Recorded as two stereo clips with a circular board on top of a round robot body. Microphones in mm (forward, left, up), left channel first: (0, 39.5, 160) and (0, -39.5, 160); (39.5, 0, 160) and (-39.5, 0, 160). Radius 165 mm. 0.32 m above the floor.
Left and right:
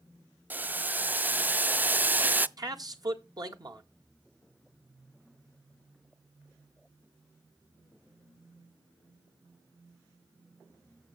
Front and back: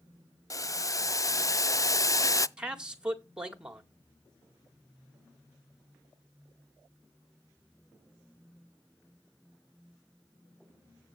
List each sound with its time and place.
0.5 s boiling: 30° right, 0.6 m
2.6 s a man speaking: 105° right, 1.9 m